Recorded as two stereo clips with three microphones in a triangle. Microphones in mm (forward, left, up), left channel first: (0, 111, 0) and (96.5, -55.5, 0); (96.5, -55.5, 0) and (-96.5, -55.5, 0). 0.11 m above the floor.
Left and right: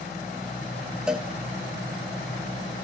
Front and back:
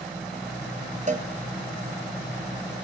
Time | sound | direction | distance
1.1 | a cowbell | 145° right | 1.4 m